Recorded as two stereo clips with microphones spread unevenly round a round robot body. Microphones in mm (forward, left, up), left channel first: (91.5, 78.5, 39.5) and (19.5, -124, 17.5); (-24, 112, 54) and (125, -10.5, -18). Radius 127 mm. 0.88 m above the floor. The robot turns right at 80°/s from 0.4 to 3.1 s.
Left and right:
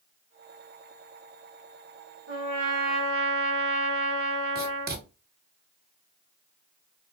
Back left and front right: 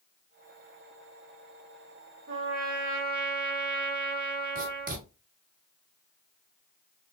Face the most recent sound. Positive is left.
turn(degrees=-75)